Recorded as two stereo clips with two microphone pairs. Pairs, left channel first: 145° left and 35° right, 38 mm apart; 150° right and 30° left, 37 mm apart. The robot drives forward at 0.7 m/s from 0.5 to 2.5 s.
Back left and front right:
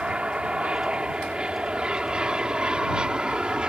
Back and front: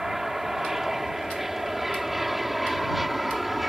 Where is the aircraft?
40° right; by 3.7 s 50° right.